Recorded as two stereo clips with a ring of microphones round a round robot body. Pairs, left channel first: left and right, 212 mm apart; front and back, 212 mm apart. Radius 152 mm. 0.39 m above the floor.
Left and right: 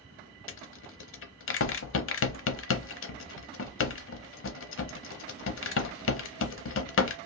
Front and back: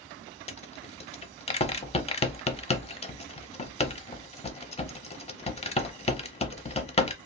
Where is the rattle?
65° left, 0.8 m.